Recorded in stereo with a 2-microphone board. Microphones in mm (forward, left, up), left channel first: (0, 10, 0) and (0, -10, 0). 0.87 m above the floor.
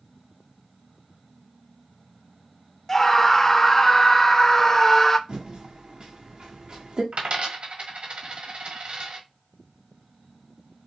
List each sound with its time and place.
2.9 s a scream: 20° left (ahead or behind), 0.7 m
5.3 s typing on a keyboard: 50° right (ahead or behind), 1.3 m
7.1 s a dropped coin: 75° right (ahead or behind), 1.4 m